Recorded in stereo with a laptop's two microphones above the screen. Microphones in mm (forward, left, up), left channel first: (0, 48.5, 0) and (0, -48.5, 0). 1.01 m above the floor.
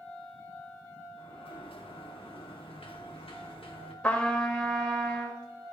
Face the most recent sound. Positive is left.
turn(degrees=10)  # may be behind; listen again after turning